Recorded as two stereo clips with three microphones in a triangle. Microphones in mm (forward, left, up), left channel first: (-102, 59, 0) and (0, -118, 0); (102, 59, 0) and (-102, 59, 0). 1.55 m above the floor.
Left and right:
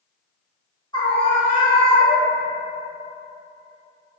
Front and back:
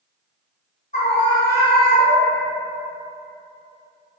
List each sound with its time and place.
0.9 s a scream: 55° left, 0.8 m; by 2.4 s 100° left, 1.1 m